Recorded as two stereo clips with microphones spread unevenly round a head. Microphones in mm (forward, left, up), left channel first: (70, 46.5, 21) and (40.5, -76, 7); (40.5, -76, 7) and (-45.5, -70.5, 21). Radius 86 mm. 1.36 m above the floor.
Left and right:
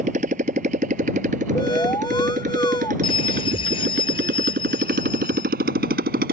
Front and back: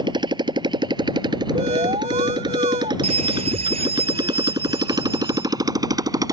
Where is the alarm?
145° left.